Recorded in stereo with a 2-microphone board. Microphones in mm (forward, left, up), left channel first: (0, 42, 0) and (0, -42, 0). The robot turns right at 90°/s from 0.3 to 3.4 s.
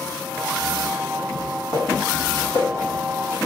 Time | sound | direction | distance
1.4 | footsteps | 5° left (ahead or behind) | 1.8 m